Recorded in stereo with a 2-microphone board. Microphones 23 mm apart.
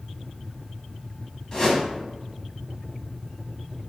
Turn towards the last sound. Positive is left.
turn(degrees=30)  # may be behind; listen again after turning